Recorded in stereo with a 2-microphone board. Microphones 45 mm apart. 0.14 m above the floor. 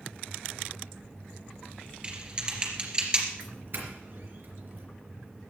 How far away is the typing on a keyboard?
About 2.5 m.